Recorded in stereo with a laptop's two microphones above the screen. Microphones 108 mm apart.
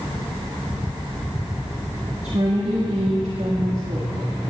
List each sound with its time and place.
2.2 s a woman speaking: 80° right, 1.6 m